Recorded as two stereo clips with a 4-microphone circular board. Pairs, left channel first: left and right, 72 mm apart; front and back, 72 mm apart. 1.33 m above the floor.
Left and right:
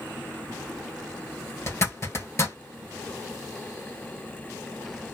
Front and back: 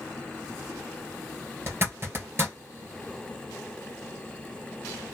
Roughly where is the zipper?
Behind left.